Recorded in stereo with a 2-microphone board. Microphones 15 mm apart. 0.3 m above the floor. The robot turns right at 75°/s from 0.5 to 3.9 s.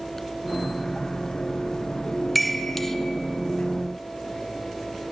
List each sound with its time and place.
2.4 s a chime: 5° left (ahead or behind), 0.6 m; by 3.0 s 20° left (ahead or behind), 0.6 m